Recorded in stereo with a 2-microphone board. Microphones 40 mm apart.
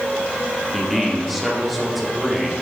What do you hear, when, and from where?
0.7 s a man speaking: 5° right (ahead or behind), 1.6 m